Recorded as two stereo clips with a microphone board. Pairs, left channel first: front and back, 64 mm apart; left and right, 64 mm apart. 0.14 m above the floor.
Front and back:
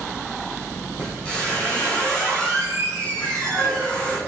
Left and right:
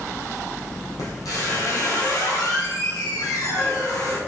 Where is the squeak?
70° left, 3.5 m.